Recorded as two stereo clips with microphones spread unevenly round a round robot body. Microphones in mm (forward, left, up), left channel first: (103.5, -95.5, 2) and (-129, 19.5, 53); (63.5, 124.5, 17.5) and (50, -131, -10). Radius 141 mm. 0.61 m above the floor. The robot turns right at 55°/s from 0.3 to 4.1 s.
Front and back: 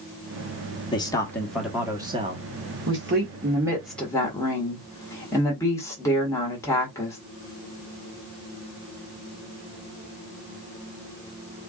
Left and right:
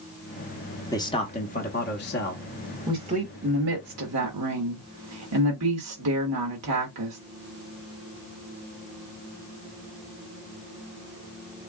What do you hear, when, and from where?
0.9 s a man speaking: 10° left, 0.9 m; by 2.4 s 95° left, 0.9 m
2.9 s a woman speaking: 170° right, 1.5 m; by 7.2 s 100° right, 1.5 m